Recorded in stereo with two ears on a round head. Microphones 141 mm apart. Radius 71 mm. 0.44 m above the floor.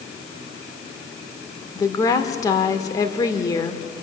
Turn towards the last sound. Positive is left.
turn(degrees=20)  # may be behind; listen again after turning